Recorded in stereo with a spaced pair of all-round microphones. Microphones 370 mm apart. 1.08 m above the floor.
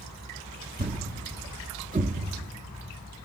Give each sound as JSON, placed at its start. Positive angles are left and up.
{"t": 0.8, "sound": "a thud", "side_deg": -20, "distance_m": 0.5}